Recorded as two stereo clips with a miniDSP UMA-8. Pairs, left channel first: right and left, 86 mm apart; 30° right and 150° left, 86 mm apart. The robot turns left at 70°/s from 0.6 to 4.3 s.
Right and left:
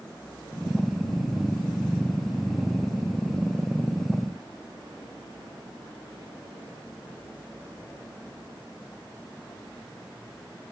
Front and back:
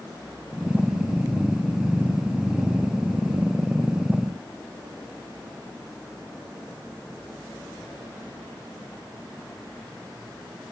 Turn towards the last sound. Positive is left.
No sound to turn to.